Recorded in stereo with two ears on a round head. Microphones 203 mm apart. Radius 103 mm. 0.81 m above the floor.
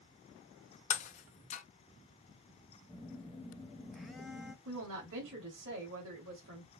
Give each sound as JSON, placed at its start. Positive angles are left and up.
{"t": 0.9, "sound": "breaking glass", "side_deg": 35, "distance_m": 0.7}
{"t": 2.9, "sound": "a phone buzzing", "side_deg": 0, "distance_m": 0.7}
{"t": 4.7, "sound": "a woman speaking", "side_deg": -65, "distance_m": 2.5}